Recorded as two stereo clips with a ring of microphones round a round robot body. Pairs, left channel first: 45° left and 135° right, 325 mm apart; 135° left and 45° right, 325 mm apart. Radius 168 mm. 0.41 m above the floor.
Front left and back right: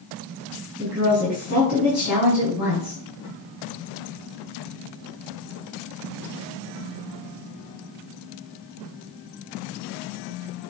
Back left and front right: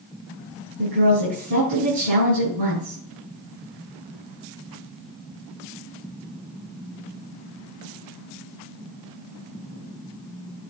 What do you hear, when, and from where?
0.8 s a woman speaking: 50° right, 4 m